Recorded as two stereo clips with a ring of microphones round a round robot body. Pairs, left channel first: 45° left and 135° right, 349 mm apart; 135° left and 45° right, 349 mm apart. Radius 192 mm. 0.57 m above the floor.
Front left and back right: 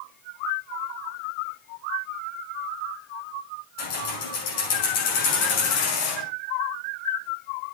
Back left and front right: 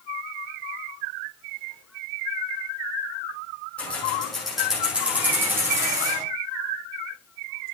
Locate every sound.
3.8 s keys jangling: 50° left, 6 m; by 6.2 s 35° left, 6 m